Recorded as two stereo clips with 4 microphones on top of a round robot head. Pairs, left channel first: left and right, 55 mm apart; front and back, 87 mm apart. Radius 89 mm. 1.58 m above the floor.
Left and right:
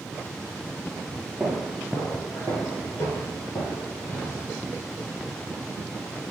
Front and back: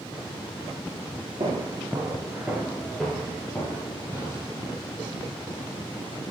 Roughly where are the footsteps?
Behind.